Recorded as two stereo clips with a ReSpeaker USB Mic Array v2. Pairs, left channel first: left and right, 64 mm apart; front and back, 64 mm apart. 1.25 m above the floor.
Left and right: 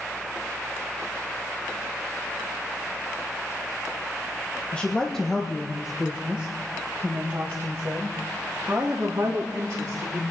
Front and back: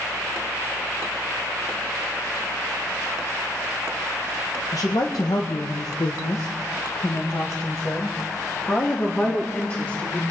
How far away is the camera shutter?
No camera shutter in this recording.